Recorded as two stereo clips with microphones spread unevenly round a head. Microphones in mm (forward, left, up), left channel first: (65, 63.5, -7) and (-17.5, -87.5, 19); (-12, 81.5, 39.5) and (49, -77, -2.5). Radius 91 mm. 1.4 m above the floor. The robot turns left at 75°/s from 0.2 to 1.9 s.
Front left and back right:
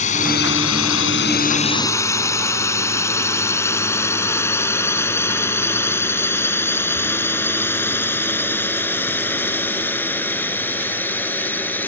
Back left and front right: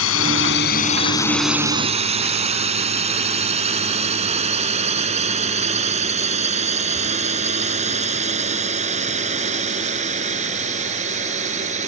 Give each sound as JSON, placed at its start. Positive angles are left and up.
{"t": 0.0, "sound": "a drone", "azimuth_deg": 115}